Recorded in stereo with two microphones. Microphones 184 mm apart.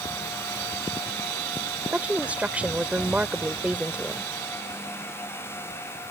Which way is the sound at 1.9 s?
5° right (ahead or behind).